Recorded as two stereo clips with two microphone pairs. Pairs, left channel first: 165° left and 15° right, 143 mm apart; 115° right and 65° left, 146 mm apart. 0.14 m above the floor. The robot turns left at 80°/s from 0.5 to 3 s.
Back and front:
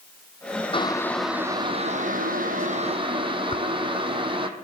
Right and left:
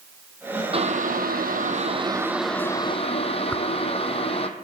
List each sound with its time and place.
0.7 s boiling: 115° left, 1.0 m; by 4.5 s 70° right, 1.0 m
3.5 s a whoosh: 175° left, 0.7 m